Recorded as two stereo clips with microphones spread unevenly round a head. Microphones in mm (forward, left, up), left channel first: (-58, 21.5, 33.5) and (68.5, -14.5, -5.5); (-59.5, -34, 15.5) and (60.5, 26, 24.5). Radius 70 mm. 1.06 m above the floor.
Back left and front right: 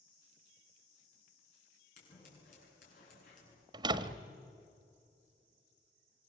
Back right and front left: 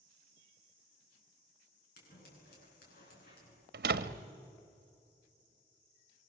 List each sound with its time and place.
2.0 s scissors: 165° right, 9 m
3.7 s a door slam: 45° left, 1.1 m